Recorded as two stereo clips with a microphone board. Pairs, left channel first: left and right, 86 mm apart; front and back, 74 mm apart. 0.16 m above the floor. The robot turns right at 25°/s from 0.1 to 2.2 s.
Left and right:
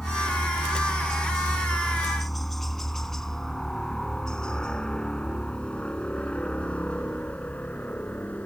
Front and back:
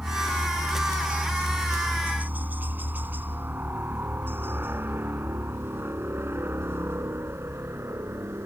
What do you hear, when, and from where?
0.0 s a helicopter: 150° left